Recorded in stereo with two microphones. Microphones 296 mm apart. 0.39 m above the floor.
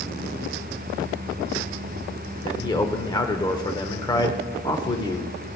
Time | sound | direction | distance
2.4 | a man speaking | 15° left (ahead or behind) | 0.8 m